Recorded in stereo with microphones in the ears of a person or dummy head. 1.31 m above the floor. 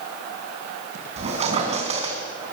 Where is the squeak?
35° right (ahead or behind), 3.5 m.